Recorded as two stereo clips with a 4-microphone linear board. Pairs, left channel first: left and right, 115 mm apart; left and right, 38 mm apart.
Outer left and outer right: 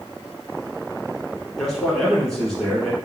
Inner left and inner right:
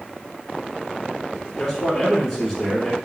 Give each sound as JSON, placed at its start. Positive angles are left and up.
{"t": 1.6, "sound": "a man speaking", "side_deg": 5, "distance_m": 1.1}